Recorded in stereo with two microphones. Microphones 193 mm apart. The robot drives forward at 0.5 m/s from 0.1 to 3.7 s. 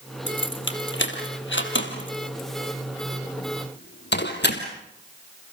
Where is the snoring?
I don't hear snoring.